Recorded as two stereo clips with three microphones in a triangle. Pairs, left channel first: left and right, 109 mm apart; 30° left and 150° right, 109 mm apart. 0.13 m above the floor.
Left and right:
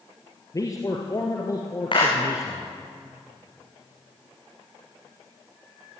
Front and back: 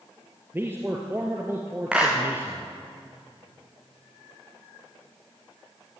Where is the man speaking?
145° left, 2.5 m.